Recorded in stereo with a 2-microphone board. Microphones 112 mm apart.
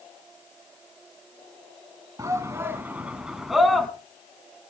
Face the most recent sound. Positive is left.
turn(degrees=5)  # may be behind; listen again after turning